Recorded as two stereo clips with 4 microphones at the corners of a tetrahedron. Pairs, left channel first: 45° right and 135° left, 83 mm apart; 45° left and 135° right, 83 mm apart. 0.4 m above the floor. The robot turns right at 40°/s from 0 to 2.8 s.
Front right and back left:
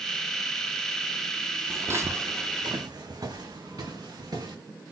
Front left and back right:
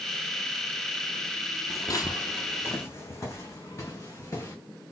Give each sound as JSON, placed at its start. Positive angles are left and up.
{"t": 1.7, "sound": "footsteps", "azimuth_deg": 80, "distance_m": 0.6}